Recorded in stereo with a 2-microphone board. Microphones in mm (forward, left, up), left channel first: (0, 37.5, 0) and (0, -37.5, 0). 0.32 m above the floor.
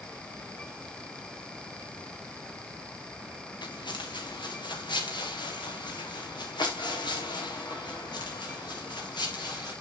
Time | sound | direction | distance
3.6 | footsteps | 80° left | 2 m